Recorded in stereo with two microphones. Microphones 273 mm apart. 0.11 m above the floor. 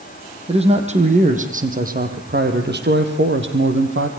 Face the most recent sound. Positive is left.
turn(degrees=-50)  # may be behind; listen again after turning